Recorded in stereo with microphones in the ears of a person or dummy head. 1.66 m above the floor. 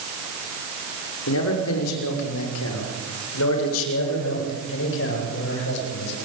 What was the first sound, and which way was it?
A man speaking, 70° left (ahead or behind).